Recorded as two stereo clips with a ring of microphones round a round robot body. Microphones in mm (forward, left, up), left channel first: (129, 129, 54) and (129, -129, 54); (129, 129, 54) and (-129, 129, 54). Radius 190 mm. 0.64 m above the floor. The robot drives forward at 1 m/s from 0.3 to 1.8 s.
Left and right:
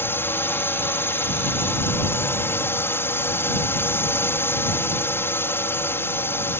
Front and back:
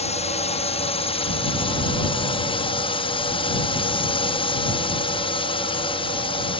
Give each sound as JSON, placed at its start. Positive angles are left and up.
{"t": 0.0, "sound": "a drone", "azimuth_deg": 20}